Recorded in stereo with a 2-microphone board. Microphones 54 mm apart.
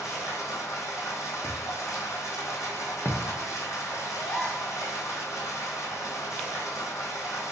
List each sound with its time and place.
0.0 s running water: 80° left, 1.0 m
1.4 s a thud: 50° left (ahead or behind), 0.7 m
4.2 s a gasp: 20° left (ahead or behind), 0.7 m